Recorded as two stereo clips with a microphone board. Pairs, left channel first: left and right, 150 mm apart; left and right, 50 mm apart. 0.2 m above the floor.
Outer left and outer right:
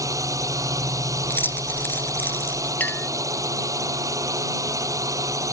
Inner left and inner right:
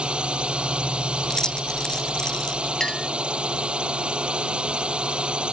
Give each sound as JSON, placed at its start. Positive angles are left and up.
{"t": 0.0, "sound": "a drone", "side_deg": -20}
{"t": 1.2, "sound": "keys jangling", "side_deg": 15}
{"t": 2.8, "sound": "a clink", "side_deg": 10}